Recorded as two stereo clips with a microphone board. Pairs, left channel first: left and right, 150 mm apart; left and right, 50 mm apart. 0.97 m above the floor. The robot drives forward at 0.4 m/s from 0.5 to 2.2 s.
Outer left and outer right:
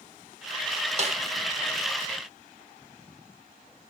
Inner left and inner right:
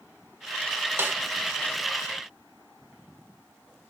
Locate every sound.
1.0 s a snare drum: 45° right (ahead or behind), 1.2 m